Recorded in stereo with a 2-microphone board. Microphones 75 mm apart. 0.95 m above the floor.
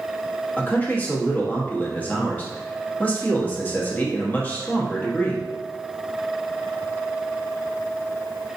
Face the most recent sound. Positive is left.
turn(degrees=20)  # may be behind; listen again after turning